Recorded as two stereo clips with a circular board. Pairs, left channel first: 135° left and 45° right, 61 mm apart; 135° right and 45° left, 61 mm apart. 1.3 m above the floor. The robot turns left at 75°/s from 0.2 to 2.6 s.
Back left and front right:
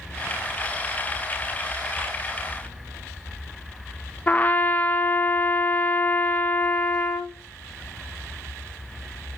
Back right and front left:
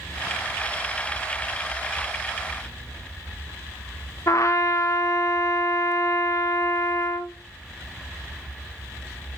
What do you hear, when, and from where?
4.3 s a trumpet: 165° right, 0.7 m